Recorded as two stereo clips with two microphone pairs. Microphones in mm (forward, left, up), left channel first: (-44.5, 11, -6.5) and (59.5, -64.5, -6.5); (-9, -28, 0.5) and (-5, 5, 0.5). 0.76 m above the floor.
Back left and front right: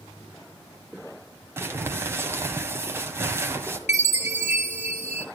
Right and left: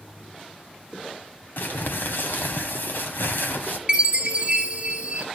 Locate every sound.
1.6 s crumpling: 105° right, 1.6 m
3.9 s a chime: 135° left, 1.6 m